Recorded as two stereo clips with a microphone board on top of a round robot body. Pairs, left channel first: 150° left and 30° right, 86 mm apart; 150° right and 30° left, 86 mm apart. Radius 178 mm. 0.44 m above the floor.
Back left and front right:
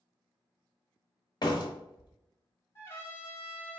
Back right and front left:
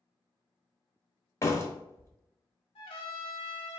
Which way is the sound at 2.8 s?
145° right.